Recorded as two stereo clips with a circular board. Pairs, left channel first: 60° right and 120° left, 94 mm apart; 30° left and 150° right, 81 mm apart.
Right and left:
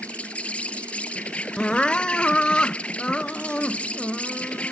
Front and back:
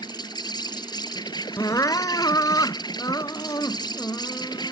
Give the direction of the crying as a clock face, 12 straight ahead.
11 o'clock.